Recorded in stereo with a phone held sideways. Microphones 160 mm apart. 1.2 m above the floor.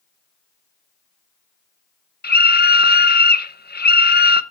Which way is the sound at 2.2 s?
75° left (ahead or behind).